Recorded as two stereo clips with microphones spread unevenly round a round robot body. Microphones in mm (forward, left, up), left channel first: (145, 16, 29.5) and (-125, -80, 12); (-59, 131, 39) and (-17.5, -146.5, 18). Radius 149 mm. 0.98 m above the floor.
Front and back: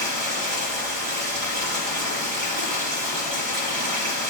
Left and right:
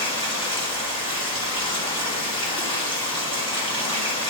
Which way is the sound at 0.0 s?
170° left.